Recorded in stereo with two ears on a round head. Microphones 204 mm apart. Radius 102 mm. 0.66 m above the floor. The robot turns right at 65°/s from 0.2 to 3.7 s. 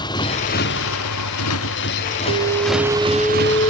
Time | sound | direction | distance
0.0 | a motorcycle | 20° left (ahead or behind) | ?
2.3 | an alarm | 55° right | ?